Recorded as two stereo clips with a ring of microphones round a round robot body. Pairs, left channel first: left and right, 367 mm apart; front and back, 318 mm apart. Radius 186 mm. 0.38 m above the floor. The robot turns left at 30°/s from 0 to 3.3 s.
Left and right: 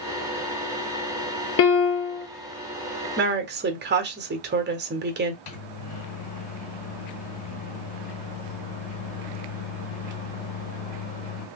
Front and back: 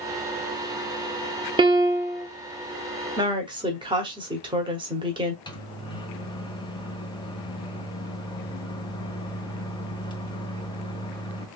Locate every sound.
1.6 s a piano: 115° left, 0.8 m; by 2.3 s 95° left, 0.8 m
3.2 s a woman speaking: 115° right, 1.1 m; by 5.4 s 120° right, 1.1 m
5.5 s a microwave: 75° left, 1.2 m